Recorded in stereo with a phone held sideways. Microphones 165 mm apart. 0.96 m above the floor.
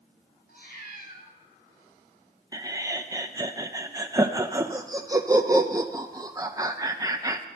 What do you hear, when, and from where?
0.5 s a cat meowing: 75° left (ahead or behind), 2.5 m
2.5 s laughter: 20° right (ahead or behind), 0.6 m